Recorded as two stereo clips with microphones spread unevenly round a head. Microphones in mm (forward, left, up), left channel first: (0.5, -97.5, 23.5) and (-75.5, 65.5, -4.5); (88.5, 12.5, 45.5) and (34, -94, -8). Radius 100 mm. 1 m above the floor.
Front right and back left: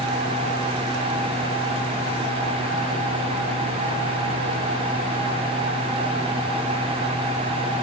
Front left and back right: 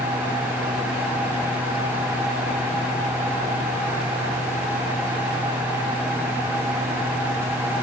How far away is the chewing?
I don't hear chewing.